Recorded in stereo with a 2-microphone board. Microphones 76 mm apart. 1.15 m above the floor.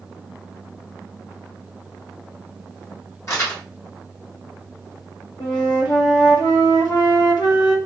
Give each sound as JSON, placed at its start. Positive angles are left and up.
{"t": 3.3, "sound": "crumpling", "side_deg": 45, "distance_m": 1.5}
{"t": 5.4, "sound": "a flute", "side_deg": 65, "distance_m": 0.9}